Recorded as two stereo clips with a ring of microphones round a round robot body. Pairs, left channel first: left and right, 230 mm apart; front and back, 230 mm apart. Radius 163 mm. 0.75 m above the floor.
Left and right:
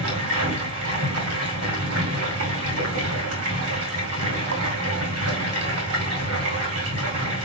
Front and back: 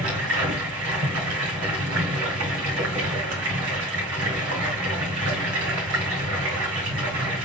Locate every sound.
0.0 s running water: 135° right, 2 m